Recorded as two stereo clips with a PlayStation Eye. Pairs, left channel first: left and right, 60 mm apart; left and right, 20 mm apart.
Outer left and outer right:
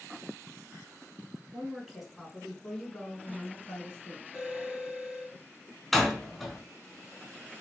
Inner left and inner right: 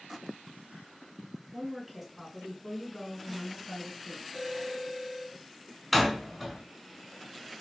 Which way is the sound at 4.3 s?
5° right (ahead or behind).